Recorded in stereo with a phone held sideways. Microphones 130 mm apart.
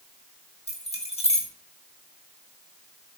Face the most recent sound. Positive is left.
turn(degrees=55)  # may be behind; listen again after turning